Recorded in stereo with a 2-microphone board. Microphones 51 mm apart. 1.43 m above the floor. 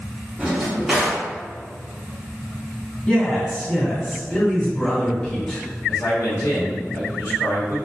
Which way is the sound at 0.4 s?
10° right (ahead or behind).